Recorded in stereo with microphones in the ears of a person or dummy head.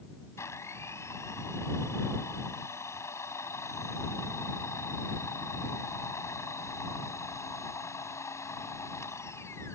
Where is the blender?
20° left (ahead or behind).